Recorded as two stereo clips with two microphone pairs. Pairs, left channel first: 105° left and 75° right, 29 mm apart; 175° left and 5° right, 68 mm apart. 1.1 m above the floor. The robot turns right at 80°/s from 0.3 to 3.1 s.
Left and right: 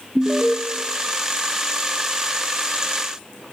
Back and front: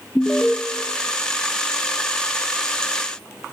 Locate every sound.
0.1 s an alarm: 125° right, 1.0 m; by 0.6 s 105° right, 1.0 m